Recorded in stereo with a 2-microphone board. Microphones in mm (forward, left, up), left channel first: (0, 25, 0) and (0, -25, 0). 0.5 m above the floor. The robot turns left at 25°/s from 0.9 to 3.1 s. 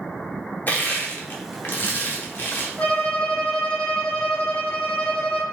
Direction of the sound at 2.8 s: 25° left (ahead or behind).